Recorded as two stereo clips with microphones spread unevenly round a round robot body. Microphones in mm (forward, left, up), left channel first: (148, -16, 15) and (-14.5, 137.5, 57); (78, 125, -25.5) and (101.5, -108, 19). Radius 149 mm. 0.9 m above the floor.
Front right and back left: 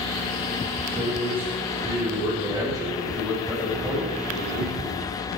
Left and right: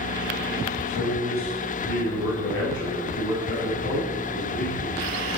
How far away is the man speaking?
About 4 m.